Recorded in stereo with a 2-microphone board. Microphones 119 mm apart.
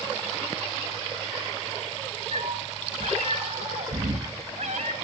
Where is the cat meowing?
70° right (ahead or behind), 1.6 m.